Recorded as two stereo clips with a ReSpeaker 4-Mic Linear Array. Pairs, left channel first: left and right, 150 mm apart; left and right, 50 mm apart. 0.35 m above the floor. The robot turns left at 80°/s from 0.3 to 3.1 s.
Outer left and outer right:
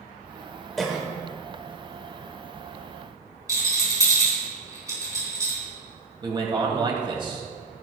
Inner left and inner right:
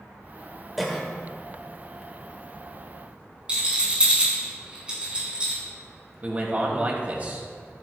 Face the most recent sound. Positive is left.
turn(degrees=-35)  # may be behind; listen again after turning